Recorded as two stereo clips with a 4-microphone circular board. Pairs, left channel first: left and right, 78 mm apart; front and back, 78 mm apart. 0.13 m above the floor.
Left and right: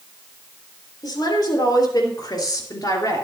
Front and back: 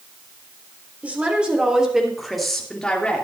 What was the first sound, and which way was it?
A woman speaking, 110° left.